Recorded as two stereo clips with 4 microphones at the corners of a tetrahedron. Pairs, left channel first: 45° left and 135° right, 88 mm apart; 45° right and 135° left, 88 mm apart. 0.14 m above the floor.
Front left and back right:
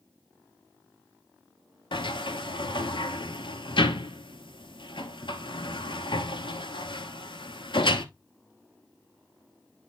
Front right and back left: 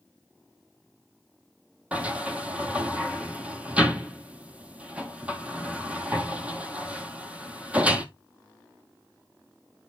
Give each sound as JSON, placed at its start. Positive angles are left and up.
{"t": 1.9, "sound": "a sliding door", "azimuth_deg": 60, "distance_m": 0.9}